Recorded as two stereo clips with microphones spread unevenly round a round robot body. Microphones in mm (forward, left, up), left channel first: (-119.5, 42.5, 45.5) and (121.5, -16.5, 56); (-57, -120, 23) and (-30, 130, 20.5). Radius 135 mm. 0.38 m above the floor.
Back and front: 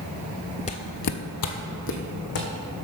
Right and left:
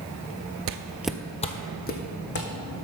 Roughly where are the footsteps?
Left.